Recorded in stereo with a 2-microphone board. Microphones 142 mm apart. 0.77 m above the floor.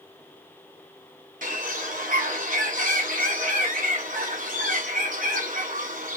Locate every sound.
1.4 s a bird: 75° right (ahead or behind), 1.9 m